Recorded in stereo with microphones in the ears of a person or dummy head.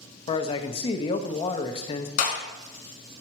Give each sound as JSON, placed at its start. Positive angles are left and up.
{"t": 0.3, "sound": "a man speaking", "side_deg": 30, "distance_m": 0.7}
{"t": 2.2, "sound": "a clap", "side_deg": 45, "distance_m": 2.0}